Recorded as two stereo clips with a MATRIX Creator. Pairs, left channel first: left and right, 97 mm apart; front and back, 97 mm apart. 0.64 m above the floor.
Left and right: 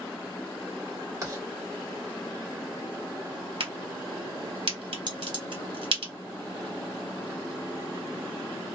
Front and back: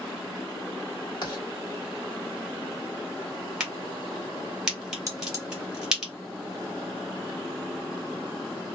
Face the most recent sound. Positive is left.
turn(degrees=-125)